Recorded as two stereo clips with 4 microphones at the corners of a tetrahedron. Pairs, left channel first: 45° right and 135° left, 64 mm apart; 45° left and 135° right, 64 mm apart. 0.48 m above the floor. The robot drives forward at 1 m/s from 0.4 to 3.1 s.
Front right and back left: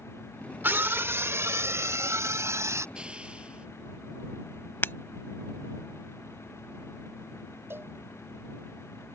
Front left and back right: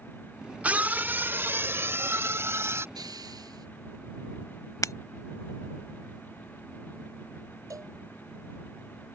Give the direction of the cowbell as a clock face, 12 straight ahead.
6 o'clock.